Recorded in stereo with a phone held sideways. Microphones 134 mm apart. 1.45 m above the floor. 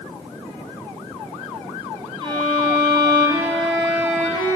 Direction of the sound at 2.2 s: 35° right (ahead or behind).